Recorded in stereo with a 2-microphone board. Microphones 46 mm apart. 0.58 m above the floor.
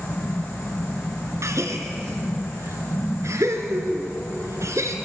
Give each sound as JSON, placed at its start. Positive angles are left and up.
{"t": 1.4, "sound": "a gasp", "side_deg": -75, "distance_m": 2.5}